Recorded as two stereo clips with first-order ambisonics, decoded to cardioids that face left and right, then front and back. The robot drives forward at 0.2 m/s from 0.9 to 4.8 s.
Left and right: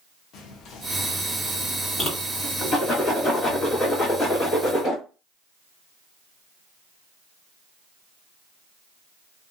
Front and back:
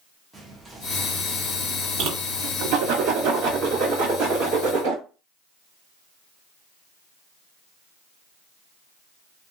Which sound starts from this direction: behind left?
A whoosh, at 2.0 s.